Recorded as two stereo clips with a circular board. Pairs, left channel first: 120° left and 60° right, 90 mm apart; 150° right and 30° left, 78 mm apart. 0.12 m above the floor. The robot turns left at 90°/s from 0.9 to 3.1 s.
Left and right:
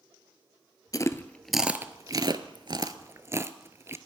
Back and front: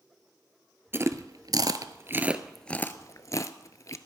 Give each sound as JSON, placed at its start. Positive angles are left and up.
{"t": 0.9, "sound": "chewing", "azimuth_deg": 85, "distance_m": 0.7}